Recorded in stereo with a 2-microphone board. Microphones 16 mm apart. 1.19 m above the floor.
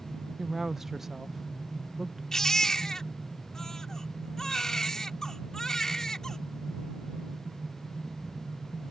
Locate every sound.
0.4 s a woman speaking: 25° right (ahead or behind)
2.3 s a baby crying: 40° left (ahead or behind)